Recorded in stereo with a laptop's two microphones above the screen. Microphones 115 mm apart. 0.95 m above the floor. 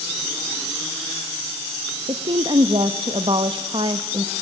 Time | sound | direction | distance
2.1 | a woman speaking | 50° right (ahead or behind) | 1.1 m